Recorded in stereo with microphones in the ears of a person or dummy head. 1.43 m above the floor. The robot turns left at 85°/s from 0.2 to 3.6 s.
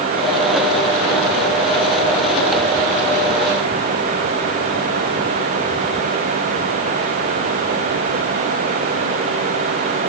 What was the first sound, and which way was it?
Only background noise.